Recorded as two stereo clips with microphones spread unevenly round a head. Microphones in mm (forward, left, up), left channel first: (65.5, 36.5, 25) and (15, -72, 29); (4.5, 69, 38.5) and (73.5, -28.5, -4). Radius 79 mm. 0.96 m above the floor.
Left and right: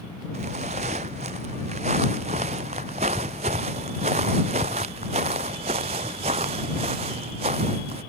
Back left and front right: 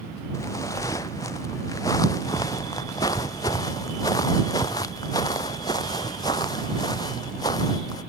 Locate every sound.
0.3 s footsteps: 165° right; by 8.0 s 170° right